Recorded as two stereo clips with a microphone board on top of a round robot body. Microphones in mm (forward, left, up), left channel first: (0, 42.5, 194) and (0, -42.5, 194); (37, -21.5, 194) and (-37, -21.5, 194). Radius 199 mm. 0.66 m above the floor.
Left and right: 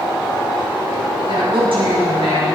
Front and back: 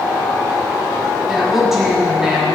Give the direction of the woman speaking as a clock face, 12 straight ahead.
3 o'clock.